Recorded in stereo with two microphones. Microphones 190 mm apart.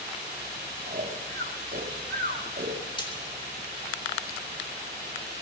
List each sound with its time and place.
0.9 s snoring: 55° right (ahead or behind), 2.5 m
3.0 s frying: 25° left (ahead or behind), 3.5 m